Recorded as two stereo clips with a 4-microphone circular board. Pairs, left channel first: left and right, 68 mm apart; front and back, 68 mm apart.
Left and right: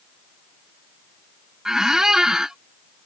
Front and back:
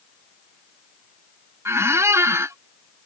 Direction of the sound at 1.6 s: 170° right.